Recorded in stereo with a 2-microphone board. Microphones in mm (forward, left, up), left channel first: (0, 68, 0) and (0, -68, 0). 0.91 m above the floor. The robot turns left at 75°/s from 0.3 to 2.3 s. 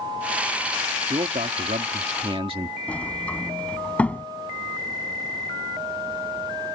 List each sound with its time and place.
1.1 s a man speaking: 45° right; by 2.8 s 135° right
2.9 s a sliding door: 10° left (ahead or behind)